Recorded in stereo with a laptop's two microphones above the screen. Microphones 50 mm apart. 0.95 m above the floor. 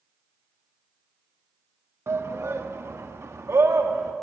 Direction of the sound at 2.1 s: 60° right (ahead or behind).